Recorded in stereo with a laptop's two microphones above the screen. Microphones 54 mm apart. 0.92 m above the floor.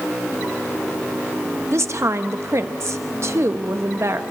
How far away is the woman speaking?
About 1.0 m.